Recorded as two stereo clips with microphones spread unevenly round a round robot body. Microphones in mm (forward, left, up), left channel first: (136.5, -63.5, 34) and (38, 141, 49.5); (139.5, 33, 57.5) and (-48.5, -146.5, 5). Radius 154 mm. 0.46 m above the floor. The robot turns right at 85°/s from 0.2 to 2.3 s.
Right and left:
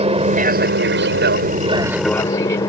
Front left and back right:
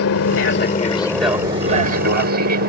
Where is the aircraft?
60° left; by 2.7 s 135° right.